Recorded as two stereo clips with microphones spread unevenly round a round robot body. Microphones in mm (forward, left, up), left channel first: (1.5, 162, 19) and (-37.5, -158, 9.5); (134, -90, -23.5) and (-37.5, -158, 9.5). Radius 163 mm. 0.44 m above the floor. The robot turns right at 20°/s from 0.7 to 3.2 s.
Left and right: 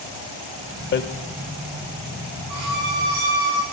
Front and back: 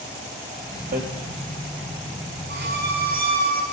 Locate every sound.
0.9 s hammering: 140° left, 1.1 m
2.5 s a violin: 135° right, 4.5 m; by 3.6 s 120° right, 4.5 m